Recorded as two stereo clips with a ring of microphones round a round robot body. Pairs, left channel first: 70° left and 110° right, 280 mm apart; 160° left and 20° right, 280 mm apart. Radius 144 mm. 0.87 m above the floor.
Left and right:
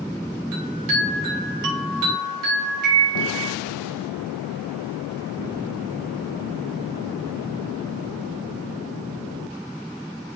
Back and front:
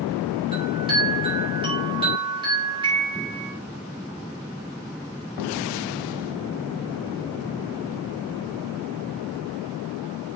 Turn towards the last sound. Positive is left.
turn(degrees=-95)